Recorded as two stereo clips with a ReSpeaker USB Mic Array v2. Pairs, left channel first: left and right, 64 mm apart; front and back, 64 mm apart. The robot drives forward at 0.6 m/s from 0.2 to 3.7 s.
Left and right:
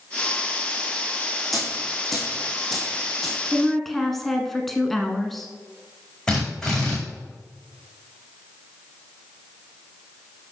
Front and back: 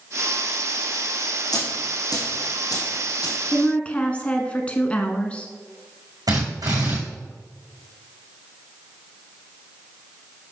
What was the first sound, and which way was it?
A dropped coin, straight ahead.